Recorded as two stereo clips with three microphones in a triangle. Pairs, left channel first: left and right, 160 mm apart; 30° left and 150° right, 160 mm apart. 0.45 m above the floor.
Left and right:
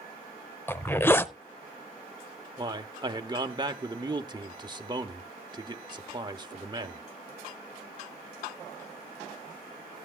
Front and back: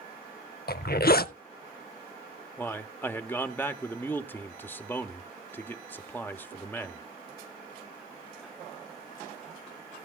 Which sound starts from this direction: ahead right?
A man speaking, at 2.6 s.